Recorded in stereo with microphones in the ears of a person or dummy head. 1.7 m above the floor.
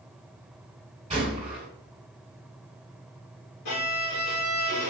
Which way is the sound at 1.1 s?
25° right (ahead or behind).